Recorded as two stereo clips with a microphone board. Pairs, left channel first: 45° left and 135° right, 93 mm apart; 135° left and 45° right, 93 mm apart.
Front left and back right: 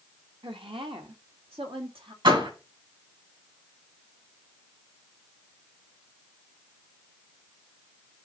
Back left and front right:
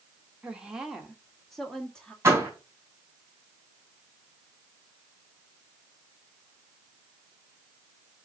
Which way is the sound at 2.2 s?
110° right.